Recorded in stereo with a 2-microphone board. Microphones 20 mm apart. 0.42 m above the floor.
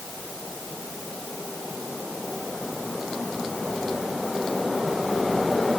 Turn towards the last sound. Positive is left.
No sound to turn to.